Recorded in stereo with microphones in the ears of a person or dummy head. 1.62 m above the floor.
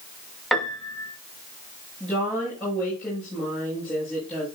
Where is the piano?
Centre (ahead or behind), 1.6 m.